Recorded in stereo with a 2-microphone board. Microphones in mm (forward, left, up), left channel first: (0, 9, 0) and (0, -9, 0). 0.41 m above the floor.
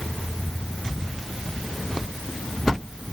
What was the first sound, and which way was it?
Only background noise.